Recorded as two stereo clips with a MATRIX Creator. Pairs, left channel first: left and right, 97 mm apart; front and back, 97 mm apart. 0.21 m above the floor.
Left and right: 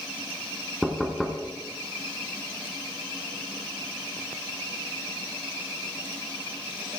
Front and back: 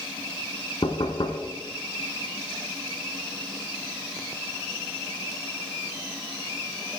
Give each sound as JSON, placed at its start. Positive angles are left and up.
{"t": 0.8, "sound": "knocking", "azimuth_deg": 0, "distance_m": 1.3}